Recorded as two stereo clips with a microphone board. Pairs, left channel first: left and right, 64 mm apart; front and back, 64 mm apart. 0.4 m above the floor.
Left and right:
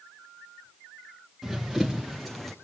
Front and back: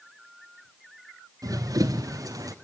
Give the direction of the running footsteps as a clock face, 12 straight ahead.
6 o'clock.